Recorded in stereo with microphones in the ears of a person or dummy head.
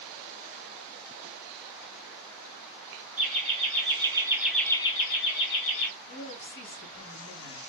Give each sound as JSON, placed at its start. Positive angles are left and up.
{"t": 3.2, "sound": "laughter", "side_deg": -35, "distance_m": 1.4}
{"t": 6.1, "sound": "a woman speaking", "side_deg": 65, "distance_m": 1.6}